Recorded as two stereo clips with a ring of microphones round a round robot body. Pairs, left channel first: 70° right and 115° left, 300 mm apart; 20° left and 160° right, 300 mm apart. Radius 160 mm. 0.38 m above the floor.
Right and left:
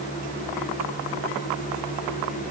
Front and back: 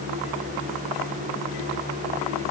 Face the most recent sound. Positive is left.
No sound to turn to.